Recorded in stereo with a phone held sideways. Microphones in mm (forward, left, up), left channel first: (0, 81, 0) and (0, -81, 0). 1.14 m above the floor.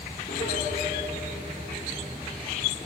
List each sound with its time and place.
0.3 s a piano: 70° left (ahead or behind), 3 m